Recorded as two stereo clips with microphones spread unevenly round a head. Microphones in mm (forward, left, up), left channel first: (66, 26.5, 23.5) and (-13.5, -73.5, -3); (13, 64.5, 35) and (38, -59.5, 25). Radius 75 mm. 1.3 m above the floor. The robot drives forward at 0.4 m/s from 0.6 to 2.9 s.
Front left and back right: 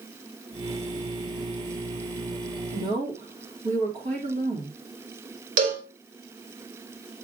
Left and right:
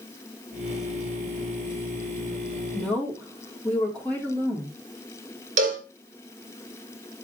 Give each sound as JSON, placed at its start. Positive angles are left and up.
{"t": 2.7, "sound": "a woman speaking", "azimuth_deg": -175, "distance_m": 2.5}
{"t": 5.6, "sound": "a cowbell", "azimuth_deg": -115, "distance_m": 2.5}